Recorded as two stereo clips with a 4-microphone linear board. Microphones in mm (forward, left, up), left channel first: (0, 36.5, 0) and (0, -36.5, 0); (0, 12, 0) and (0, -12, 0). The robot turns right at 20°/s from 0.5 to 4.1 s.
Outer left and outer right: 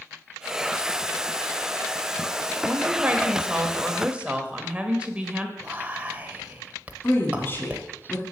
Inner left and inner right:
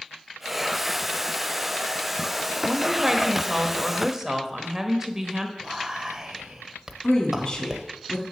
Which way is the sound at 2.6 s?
20° right (ahead or behind).